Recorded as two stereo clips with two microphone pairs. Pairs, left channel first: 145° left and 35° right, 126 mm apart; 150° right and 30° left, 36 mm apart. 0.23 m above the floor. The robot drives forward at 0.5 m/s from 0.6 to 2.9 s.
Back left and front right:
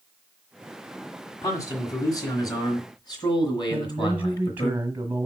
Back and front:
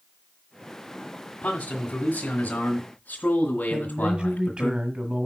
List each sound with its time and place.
1.4 s a man speaking: 165° right, 1.6 m; by 4.7 s 175° right, 2 m
3.7 s a man speaking: 25° left, 1.1 m